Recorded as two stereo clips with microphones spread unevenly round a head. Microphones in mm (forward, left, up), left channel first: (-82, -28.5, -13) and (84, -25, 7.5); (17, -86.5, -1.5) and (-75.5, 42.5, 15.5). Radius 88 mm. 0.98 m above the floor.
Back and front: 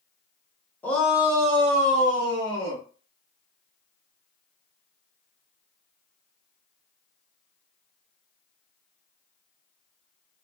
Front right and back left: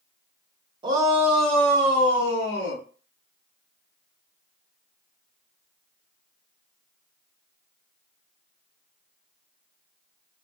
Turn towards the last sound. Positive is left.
turn(degrees=-20)